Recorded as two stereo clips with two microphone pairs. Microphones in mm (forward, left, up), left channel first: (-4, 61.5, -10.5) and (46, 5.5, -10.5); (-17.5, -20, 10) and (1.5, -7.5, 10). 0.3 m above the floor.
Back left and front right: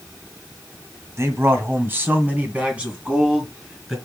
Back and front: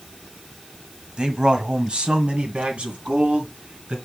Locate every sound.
1.2 s a man speaking: 5° right, 1.7 m; by 4.0 s 30° left, 3 m